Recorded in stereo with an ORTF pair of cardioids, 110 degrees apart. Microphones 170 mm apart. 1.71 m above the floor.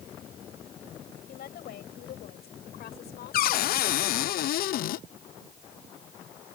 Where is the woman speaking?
65° left; by 4.3 s 80° left.